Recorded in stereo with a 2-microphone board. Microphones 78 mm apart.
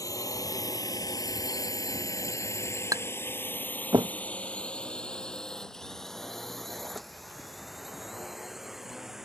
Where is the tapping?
45° right (ahead or behind).